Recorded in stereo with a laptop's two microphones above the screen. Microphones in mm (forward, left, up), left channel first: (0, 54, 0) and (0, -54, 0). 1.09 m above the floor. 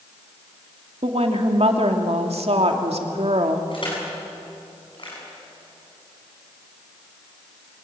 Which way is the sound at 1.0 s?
70° right (ahead or behind).